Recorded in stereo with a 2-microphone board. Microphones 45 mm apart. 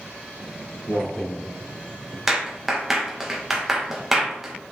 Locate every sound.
0.4 s footsteps: 25° left (ahead or behind), 3.5 m; by 2.2 s 40° left (ahead or behind), 2.5 m
2.3 s a clap: 10° right (ahead or behind), 1.5 m